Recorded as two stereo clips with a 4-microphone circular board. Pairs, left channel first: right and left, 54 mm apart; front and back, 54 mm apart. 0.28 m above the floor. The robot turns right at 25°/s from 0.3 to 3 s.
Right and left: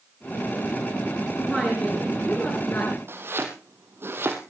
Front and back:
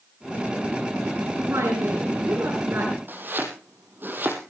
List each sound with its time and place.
1.4 s a woman speaking: 175° right, 4 m; by 3.0 s 135° right, 4 m
3.1 s chopping: 130° left, 3.5 m